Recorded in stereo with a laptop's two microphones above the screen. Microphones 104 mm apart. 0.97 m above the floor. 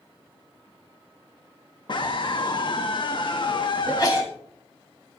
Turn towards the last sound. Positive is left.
turn(degrees=40)  # may be behind; listen again after turning